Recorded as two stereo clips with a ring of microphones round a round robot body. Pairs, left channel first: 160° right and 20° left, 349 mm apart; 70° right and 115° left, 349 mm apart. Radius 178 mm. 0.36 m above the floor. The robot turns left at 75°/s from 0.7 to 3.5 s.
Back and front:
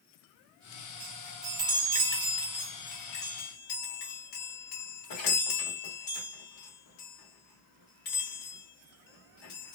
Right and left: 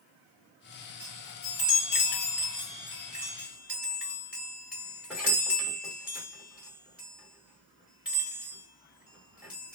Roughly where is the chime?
Ahead left.